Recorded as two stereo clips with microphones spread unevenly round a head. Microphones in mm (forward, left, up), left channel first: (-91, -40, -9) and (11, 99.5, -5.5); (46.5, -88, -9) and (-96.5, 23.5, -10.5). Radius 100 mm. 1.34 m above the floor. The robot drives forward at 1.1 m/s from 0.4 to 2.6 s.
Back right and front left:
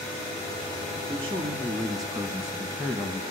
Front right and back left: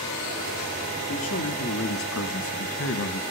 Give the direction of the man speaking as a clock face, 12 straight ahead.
12 o'clock.